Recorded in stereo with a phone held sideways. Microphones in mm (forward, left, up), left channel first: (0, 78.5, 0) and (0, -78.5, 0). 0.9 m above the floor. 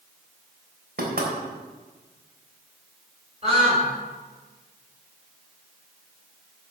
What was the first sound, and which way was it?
Knocking, 75° right (ahead or behind).